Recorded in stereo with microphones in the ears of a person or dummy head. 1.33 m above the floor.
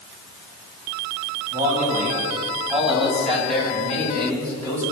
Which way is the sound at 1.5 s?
15° right (ahead or behind).